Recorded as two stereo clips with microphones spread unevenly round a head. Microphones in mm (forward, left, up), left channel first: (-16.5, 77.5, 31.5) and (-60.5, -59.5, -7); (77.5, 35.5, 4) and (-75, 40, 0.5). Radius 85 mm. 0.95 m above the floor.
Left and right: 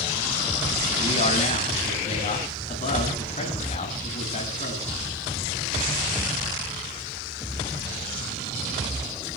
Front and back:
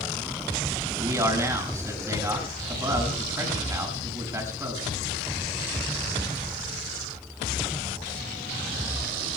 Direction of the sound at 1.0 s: 110° left.